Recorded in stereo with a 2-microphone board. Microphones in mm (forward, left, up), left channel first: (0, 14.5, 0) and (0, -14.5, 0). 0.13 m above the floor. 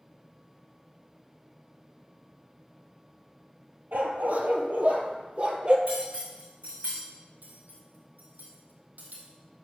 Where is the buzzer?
I don't hear a buzzer.